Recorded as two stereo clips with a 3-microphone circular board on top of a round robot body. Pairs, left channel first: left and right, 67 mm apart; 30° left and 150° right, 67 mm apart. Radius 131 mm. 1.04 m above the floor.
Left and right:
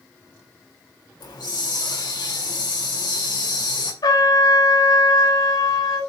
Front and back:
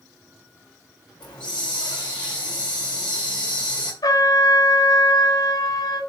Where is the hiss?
105° left, 3.5 m.